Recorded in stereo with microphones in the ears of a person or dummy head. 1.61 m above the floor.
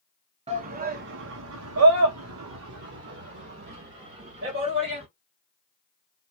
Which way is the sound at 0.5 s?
30° right (ahead or behind).